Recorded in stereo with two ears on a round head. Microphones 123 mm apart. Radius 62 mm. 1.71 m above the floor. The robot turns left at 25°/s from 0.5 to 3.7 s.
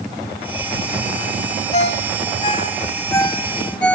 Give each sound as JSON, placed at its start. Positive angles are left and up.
{"t": 1.7, "sound": "a ringtone", "side_deg": 55, "distance_m": 3.5}